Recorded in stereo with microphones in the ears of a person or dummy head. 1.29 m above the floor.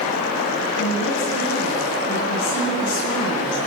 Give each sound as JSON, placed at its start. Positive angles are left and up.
{"t": 0.8, "sound": "a woman speaking", "side_deg": 75, "distance_m": 9.0}